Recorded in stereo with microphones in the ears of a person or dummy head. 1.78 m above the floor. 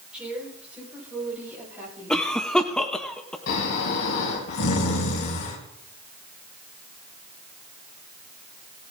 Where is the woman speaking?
5° right (ahead or behind), 7 m; by 2.3 s 10° right (ahead or behind), 9.5 m.